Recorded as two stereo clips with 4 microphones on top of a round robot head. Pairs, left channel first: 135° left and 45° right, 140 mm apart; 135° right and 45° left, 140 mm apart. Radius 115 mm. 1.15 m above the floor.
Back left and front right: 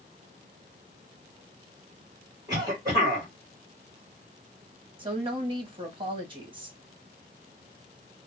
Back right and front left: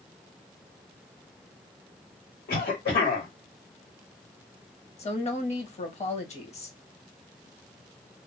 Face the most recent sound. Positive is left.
turn(degrees=-95)